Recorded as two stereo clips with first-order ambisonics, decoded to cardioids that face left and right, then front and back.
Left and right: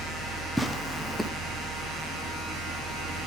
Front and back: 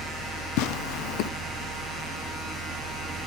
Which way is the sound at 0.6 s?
Straight ahead.